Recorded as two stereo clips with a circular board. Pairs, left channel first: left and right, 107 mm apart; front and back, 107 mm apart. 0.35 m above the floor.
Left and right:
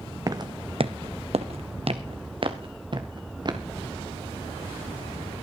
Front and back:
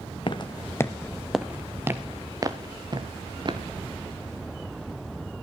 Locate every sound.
0.3 s footsteps: 35° right, 0.9 m; by 3.6 s 135° right, 2.5 m